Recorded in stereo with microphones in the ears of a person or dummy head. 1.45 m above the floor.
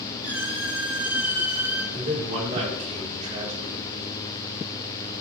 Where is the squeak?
10° right (ahead or behind), 5.5 m.